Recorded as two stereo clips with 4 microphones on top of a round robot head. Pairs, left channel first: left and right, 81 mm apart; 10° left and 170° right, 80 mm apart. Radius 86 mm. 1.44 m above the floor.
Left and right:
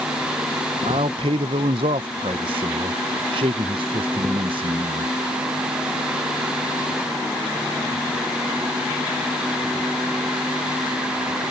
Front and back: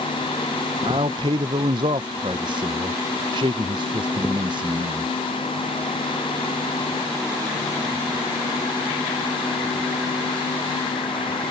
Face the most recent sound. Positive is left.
turn(degrees=-125)